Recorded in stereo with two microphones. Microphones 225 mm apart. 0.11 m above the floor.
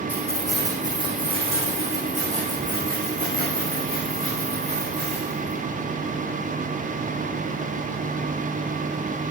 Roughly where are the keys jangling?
Centre.